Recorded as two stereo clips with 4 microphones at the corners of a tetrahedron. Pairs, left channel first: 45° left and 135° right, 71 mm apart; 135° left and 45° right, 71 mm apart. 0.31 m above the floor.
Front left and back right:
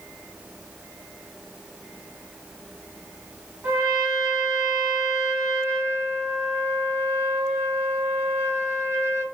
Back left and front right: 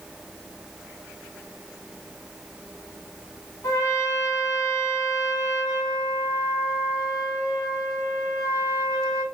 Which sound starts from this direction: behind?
A trumpet, at 3.6 s.